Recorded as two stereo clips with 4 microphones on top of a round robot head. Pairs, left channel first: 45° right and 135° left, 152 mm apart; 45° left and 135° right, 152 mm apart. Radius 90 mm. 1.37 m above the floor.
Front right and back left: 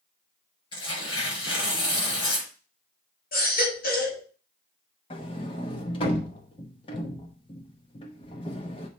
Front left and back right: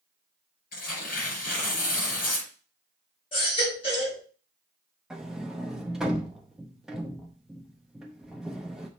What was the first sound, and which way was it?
Tearing paper, 15° left.